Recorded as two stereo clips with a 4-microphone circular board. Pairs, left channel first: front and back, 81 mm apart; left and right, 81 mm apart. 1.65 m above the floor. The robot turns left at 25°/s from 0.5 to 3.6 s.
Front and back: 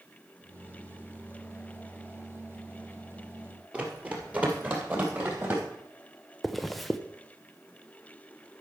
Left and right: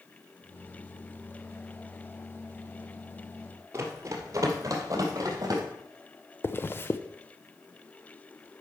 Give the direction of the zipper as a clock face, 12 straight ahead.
9 o'clock.